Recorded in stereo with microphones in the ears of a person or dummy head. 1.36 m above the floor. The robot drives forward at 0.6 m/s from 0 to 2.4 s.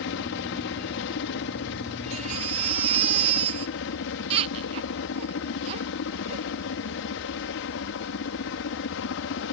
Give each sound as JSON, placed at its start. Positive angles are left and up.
{"t": 0.0, "sound": "a helicopter", "side_deg": 60}
{"t": 2.1, "sound": "a baby crying", "side_deg": -30}